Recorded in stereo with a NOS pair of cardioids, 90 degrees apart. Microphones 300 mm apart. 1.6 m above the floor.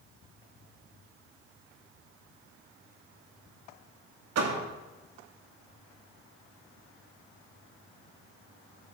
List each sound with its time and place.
4.3 s a door slam: 60° right, 2.5 m